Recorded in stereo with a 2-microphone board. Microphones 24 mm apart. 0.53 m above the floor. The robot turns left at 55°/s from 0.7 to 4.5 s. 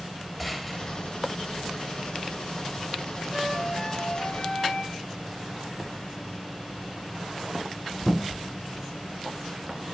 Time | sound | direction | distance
0.4 | a gunshot | 5° right (ahead or behind) | 7 m
3.3 | a flute | 165° right | 4.5 m